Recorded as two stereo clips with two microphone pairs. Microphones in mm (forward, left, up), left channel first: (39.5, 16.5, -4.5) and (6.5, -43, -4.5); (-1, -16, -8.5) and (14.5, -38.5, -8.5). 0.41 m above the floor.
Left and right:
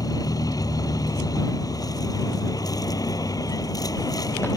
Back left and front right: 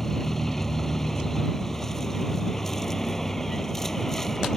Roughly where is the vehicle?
Ahead left.